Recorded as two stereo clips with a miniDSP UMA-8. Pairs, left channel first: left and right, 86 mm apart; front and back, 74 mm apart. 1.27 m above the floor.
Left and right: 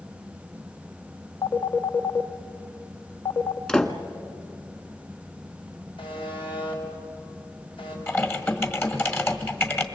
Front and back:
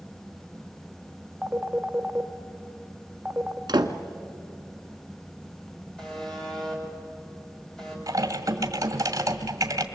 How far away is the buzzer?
About 6 m.